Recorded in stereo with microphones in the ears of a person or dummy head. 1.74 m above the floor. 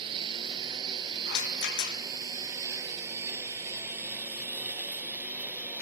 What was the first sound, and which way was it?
A lawn mower, 30° right (ahead or behind).